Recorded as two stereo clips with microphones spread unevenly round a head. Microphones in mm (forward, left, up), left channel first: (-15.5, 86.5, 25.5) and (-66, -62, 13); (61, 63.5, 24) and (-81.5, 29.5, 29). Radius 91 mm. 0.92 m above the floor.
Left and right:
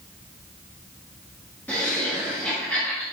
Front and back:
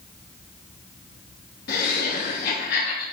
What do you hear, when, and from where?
1.7 s laughter: 10° right, 1.2 m